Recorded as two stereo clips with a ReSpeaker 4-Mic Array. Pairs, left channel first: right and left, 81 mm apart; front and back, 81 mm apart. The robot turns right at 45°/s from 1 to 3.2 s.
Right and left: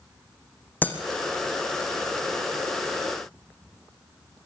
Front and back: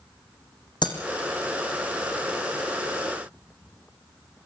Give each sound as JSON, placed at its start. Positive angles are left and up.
{"t": 0.8, "sound": "breaking glass", "azimuth_deg": -20, "distance_m": 3.5}